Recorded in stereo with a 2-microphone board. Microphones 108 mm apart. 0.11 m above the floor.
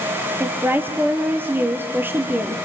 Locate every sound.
0.4 s a woman speaking: 20° right (ahead or behind), 2.5 m